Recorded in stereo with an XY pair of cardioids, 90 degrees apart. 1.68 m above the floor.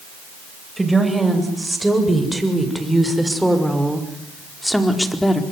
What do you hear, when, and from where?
0.8 s a woman speaking: 15° right, 8.5 m; by 5.4 s 10° left, 4 m